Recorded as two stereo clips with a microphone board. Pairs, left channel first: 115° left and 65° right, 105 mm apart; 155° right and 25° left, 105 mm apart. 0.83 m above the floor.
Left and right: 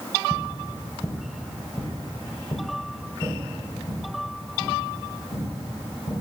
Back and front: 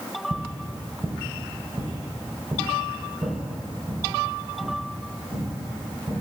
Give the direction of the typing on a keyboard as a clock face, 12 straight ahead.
No typing on a keyboard in this recording.